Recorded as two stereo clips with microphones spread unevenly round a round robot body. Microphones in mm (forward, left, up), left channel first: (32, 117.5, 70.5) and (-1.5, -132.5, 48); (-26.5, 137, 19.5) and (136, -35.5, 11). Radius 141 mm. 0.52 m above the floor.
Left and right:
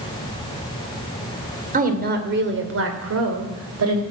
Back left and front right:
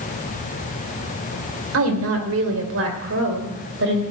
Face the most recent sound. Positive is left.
turn(degrees=-95)